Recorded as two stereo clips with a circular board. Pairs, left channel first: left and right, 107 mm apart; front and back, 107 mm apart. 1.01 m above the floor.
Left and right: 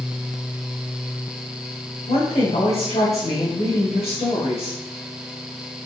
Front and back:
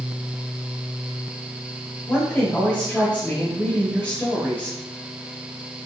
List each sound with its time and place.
2.1 s a woman speaking: 85° left, 3.5 m